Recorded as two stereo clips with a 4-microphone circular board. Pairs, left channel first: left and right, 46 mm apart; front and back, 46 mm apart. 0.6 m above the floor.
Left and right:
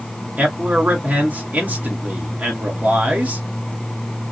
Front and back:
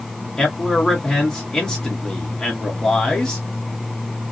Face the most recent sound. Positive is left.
turn(degrees=-70)